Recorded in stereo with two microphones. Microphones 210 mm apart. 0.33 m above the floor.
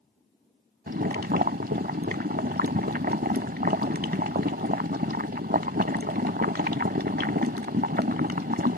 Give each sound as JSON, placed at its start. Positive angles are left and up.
{"t": 0.9, "sound": "boiling", "side_deg": -50}